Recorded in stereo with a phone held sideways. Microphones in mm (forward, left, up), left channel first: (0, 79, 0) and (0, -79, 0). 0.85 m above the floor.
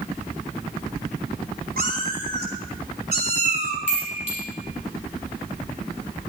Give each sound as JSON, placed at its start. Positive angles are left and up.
{"t": 1.8, "sound": "a cat meowing", "side_deg": -65, "distance_m": 2.5}
{"t": 3.9, "sound": "a chime", "side_deg": -45, "distance_m": 6.0}